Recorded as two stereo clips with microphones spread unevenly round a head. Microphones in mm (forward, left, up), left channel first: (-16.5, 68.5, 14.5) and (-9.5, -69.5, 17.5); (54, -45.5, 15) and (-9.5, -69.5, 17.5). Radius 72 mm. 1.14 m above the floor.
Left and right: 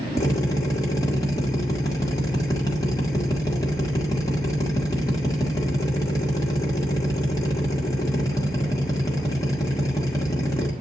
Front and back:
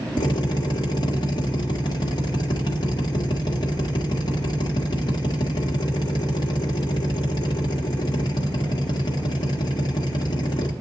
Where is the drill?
25° left, 1.9 m.